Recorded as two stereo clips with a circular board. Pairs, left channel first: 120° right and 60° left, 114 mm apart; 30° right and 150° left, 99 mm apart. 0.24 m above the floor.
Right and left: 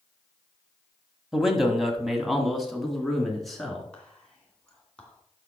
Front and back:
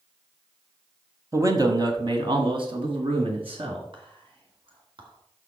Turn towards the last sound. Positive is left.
turn(degrees=160)